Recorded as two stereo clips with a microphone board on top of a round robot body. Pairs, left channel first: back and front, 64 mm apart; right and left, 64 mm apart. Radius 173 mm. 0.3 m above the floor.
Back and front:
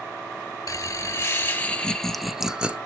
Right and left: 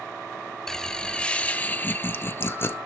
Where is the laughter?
170° right, 1.6 m; by 2.8 s 65° right, 1.4 m.